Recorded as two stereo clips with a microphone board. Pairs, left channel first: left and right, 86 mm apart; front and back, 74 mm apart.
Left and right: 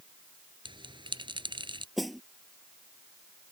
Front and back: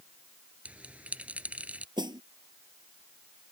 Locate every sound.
0.7 s a bell: 110° right
2.0 s a snare drum: straight behind